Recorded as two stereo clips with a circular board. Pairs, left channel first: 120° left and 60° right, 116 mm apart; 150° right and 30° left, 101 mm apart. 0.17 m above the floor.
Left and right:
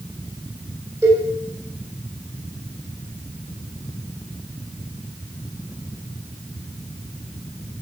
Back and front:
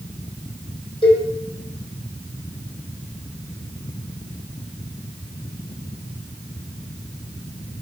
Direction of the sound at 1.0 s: 125° right.